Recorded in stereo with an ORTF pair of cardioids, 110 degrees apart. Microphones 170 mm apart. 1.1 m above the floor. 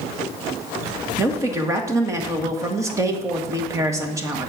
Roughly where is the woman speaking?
Ahead.